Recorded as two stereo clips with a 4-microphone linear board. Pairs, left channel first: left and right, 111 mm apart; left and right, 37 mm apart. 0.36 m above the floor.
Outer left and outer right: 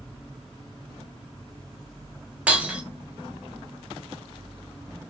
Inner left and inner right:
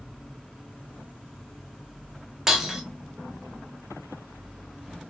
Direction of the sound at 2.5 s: 10° right (ahead or behind).